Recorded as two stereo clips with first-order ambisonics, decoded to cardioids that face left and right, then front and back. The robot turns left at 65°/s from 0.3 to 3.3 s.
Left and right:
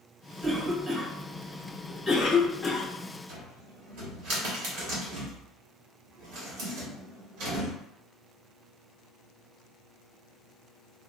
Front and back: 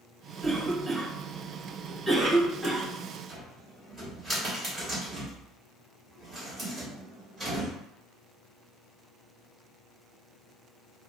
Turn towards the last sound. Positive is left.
turn(degrees=-95)